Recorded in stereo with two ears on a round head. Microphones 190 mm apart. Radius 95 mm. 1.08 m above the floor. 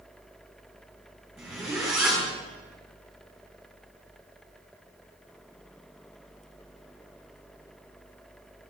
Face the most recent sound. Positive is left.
turn(degrees=0)  # may be behind; listen again after turning